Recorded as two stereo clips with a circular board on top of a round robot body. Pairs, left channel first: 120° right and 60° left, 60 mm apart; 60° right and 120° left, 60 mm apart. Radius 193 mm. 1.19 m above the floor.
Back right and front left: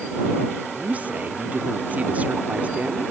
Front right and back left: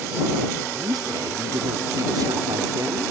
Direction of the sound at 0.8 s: 125° left.